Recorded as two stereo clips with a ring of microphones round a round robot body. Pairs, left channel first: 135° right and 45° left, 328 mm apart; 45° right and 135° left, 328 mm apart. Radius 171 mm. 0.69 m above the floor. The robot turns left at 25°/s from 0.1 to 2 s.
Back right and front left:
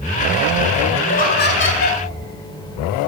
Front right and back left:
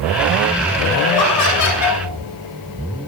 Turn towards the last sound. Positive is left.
turn(degrees=-90)